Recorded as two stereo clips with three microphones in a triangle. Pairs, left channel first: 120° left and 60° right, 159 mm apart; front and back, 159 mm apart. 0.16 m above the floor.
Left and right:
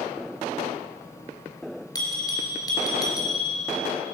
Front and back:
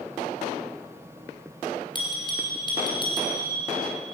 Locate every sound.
1.9 s a bell: 55° left, 2.5 m